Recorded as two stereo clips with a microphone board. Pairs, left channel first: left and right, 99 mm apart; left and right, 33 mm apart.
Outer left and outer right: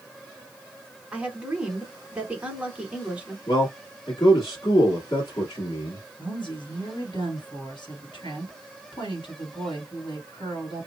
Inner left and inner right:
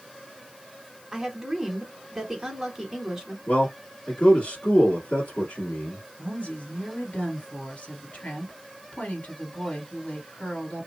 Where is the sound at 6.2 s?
60° left (ahead or behind), 2.0 m.